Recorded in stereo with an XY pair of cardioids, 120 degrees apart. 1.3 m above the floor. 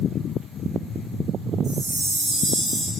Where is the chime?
55° right, 3.5 m.